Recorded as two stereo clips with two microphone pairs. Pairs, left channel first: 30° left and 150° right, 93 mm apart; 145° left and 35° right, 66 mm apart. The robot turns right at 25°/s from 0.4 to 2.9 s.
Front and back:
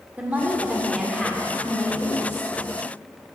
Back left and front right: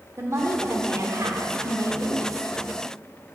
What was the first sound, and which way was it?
A woman speaking, 75° right.